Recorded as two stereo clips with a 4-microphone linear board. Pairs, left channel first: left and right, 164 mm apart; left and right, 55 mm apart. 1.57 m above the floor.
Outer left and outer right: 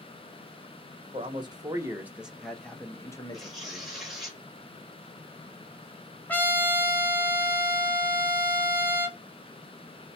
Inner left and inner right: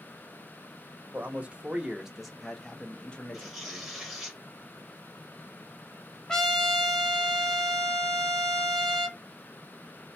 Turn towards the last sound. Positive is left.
turn(degrees=10)  # may be behind; listen again after turning